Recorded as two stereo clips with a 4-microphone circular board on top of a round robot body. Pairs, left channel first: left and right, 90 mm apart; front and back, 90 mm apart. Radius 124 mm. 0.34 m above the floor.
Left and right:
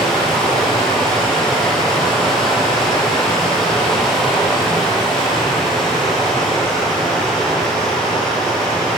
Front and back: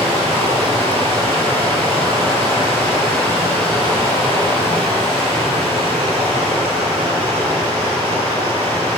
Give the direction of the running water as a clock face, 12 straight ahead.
6 o'clock.